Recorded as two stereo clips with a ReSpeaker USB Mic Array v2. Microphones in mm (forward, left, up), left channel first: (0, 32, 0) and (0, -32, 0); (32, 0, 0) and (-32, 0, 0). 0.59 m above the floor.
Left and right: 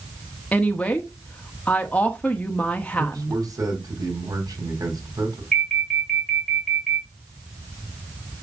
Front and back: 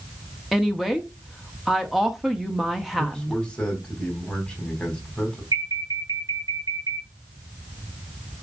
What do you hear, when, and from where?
0.5 s a woman speaking: 100° left, 1.2 m
3.0 s a man speaking: 70° right, 4 m
5.5 s an alarm: 175° left, 3.5 m